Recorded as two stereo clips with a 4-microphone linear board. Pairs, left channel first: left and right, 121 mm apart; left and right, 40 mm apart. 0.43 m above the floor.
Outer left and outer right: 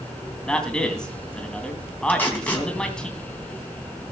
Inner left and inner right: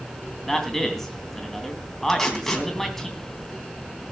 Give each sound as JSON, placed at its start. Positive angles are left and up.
{"t": 0.5, "sound": "a man speaking", "side_deg": 5, "distance_m": 3.0}
{"t": 2.1, "sound": "tape being pulled", "side_deg": 15, "distance_m": 3.0}